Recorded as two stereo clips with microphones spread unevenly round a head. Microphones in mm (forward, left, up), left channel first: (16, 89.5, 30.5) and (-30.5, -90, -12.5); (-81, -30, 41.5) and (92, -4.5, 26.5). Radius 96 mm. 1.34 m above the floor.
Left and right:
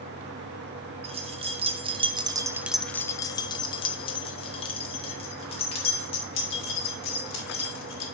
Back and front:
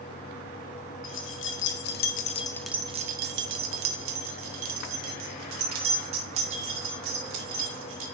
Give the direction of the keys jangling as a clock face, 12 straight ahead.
6 o'clock.